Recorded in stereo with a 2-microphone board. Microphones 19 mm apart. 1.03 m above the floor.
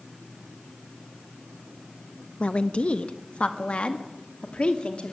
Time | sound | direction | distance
2.4 | a woman speaking | 65° left (ahead or behind) | 1.1 m